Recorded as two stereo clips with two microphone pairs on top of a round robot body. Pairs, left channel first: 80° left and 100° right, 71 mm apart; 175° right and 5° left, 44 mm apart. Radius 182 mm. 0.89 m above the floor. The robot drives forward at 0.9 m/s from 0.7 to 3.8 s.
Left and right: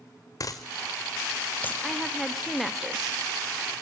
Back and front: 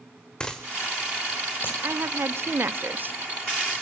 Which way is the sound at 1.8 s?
10° right.